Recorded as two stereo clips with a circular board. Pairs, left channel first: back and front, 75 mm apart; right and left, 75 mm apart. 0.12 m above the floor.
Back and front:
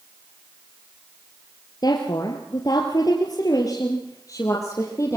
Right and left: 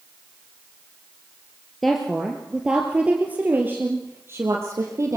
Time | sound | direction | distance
1.8 | a woman speaking | straight behind | 2.5 m